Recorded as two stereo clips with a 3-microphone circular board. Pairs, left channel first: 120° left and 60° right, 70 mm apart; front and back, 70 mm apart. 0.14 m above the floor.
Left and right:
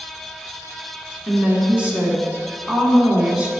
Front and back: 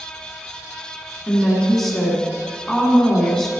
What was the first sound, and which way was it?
A woman speaking, 75° right.